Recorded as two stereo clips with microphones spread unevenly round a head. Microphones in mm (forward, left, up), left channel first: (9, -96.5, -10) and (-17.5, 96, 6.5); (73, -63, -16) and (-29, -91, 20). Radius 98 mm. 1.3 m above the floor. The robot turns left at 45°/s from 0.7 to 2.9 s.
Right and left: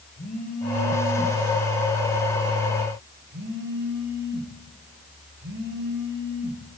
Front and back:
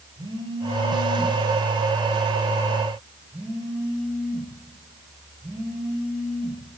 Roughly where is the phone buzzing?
Behind right.